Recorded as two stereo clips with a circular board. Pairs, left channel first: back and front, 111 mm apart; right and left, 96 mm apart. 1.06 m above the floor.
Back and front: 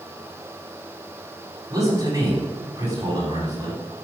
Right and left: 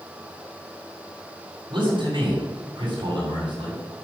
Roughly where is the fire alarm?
I don't hear a fire alarm.